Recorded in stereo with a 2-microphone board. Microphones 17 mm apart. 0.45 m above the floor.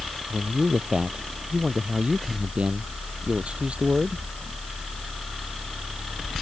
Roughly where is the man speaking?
Right.